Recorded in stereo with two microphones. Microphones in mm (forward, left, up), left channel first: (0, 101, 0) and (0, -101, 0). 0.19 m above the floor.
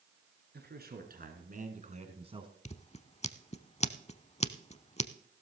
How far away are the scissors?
About 0.6 m.